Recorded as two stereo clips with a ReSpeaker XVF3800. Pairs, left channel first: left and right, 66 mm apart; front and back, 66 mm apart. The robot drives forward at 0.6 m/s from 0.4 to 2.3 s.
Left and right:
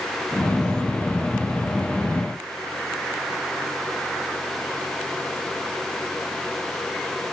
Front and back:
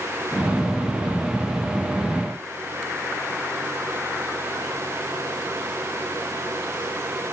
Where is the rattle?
I don't hear a rattle.